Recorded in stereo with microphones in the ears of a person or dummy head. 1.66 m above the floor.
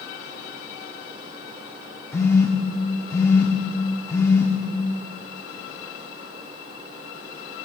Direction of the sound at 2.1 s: 15° left (ahead or behind).